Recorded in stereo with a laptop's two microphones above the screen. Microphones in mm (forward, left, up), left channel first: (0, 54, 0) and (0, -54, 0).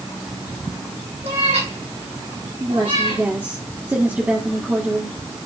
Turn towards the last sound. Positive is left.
turn(degrees=-20)  # may be behind; listen again after turning